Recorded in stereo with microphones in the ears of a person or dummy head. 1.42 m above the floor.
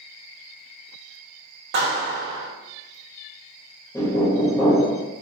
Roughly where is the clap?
Right.